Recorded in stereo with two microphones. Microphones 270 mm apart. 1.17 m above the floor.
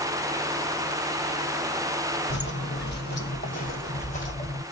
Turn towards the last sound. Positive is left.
turn(degrees=25)  # may be behind; listen again after turning